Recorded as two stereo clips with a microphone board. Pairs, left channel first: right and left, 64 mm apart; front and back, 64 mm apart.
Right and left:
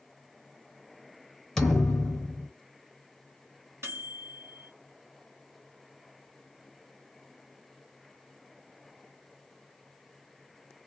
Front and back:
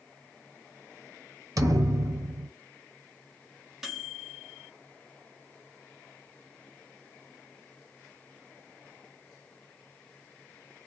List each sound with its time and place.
1.6 s a thud: 170° right, 0.7 m
3.8 s a microwave: 95° left, 1.1 m